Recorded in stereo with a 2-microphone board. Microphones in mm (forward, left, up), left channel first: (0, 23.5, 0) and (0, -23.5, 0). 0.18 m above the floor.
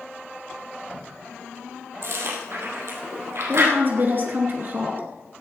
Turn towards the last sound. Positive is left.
turn(degrees=-45)  # may be behind; listen again after turning